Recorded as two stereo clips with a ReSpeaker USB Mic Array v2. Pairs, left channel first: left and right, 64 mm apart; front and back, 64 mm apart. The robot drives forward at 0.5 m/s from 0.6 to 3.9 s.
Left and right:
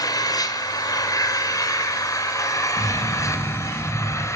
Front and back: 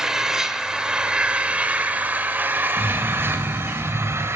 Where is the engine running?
100° left, 2.5 m; by 4.4 s 130° left, 3 m.